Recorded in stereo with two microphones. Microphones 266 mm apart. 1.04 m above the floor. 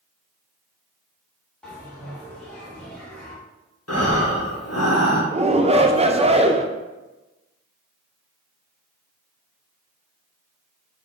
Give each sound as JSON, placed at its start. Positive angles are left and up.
{"t": 1.6, "sound": "a bell", "side_deg": 5, "distance_m": 1.2}
{"t": 3.9, "sound": "breathing", "side_deg": 60, "distance_m": 1.0}
{"t": 5.3, "sound": "a shout", "side_deg": -20, "distance_m": 0.5}